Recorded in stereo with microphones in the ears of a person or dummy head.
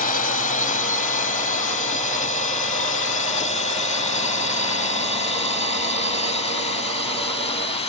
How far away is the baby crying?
No baby crying in this recording.